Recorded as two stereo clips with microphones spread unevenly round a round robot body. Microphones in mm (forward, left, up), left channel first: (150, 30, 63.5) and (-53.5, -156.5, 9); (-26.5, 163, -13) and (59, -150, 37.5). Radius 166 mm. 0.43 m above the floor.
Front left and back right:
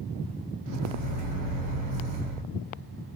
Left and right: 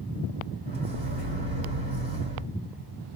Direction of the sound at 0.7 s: 140° right.